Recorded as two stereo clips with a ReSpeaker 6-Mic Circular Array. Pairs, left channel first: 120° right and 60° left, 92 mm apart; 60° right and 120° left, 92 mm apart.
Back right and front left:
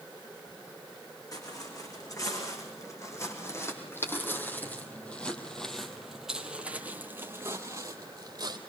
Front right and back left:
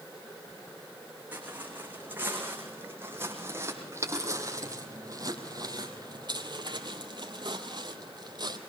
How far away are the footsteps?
About 6 m.